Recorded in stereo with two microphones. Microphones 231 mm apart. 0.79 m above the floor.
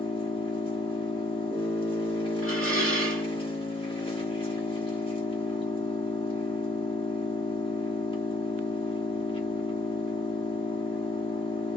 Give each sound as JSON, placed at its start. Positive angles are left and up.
{"t": 0.0, "sound": "an engine running", "side_deg": 20, "distance_m": 1.2}
{"t": 2.4, "sound": "dishes clattering", "side_deg": 70, "distance_m": 1.6}